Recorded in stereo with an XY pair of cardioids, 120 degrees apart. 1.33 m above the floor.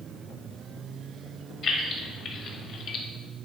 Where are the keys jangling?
55° left, 1.3 m; by 3.0 s 75° left, 0.5 m.